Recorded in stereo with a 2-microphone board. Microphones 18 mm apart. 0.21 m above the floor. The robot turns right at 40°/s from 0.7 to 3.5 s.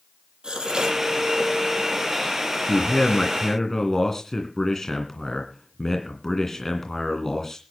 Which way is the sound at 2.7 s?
115° left.